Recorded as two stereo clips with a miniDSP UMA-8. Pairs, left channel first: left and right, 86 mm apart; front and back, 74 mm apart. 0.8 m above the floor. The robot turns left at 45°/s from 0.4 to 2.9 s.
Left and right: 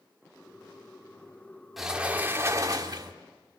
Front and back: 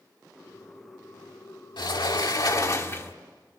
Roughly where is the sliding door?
Ahead.